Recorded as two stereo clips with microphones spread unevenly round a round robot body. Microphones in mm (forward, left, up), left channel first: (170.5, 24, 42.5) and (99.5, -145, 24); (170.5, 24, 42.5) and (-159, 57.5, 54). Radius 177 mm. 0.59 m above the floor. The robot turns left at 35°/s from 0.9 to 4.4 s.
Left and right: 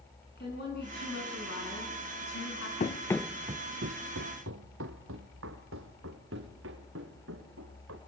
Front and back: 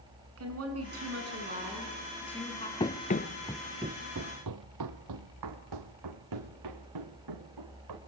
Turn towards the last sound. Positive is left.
turn(degrees=-150)